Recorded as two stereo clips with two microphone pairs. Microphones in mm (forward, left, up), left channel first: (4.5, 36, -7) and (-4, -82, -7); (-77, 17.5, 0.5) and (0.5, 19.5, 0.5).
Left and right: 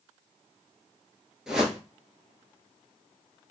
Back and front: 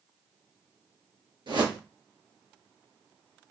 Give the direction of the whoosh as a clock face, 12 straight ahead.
12 o'clock.